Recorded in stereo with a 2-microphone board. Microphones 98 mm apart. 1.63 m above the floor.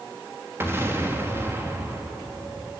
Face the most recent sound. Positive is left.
turn(degrees=-25)  # may be behind; listen again after turning